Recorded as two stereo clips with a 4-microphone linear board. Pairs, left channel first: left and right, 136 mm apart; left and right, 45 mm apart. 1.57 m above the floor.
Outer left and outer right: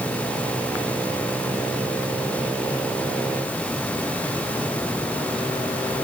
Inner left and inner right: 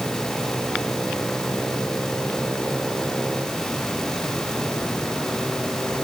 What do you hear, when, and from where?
Only background noise.